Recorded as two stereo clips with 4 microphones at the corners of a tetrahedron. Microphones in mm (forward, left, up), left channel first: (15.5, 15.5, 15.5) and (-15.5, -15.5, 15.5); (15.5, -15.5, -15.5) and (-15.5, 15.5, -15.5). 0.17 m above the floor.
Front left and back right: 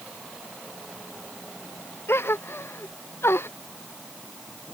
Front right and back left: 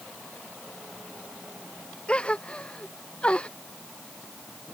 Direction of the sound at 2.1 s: 20° left.